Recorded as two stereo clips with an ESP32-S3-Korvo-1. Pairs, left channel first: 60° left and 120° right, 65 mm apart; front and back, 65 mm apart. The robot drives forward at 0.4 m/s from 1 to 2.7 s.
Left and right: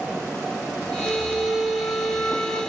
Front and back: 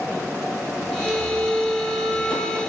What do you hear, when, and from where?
1.1 s a flute: 105° left, 1.0 m; by 2.6 s 135° left, 1.4 m